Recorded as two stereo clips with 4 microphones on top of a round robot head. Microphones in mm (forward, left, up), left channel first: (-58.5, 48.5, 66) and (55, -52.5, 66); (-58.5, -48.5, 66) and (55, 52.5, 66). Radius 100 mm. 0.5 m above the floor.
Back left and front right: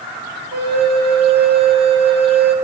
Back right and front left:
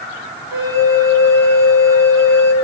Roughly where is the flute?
Ahead right.